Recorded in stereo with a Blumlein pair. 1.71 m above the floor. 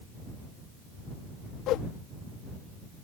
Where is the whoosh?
35° left.